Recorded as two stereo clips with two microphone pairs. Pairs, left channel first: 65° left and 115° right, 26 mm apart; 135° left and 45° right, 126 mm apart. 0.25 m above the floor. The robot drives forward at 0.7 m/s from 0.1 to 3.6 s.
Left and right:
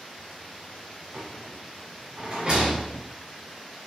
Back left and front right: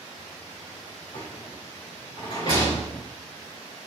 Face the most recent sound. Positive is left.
turn(degrees=-175)